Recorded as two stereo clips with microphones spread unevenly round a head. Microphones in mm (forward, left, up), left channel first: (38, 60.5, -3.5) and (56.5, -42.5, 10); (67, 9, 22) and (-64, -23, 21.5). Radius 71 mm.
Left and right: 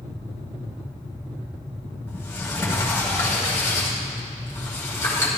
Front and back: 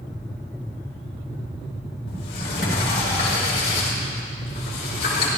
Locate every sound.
2.1 s a sliding door: 30° left, 3 m